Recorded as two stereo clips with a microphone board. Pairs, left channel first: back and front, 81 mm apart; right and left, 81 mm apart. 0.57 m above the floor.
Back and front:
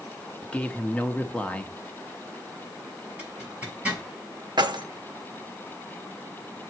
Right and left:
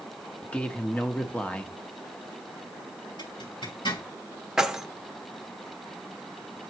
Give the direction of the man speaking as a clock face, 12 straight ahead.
5 o'clock.